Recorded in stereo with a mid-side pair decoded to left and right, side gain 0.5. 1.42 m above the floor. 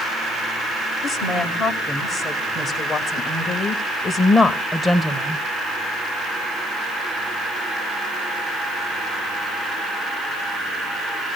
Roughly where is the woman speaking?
Ahead left.